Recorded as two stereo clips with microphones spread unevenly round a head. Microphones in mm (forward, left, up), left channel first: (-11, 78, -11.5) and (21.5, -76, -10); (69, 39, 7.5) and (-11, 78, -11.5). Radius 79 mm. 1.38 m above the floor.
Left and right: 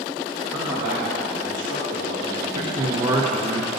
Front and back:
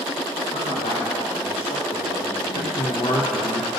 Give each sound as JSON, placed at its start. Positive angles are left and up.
{"t": 0.5, "sound": "a man speaking", "azimuth_deg": -5, "distance_m": 1.8}
{"t": 2.5, "sound": "a man speaking", "azimuth_deg": -15, "distance_m": 0.9}